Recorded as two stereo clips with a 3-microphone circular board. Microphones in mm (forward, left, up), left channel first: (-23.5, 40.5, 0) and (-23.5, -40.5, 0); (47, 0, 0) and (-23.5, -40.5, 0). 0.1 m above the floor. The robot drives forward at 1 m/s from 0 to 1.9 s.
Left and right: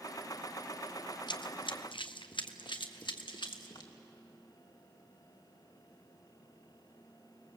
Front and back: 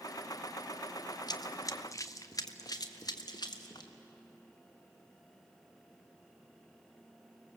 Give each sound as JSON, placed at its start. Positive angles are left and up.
{"t": 1.3, "sound": "running footsteps", "azimuth_deg": 65, "distance_m": 1.2}